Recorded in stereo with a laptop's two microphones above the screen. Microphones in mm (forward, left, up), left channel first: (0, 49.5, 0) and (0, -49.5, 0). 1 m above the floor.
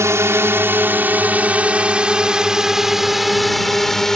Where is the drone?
30° right (ahead or behind); by 4.2 s 5° left (ahead or behind).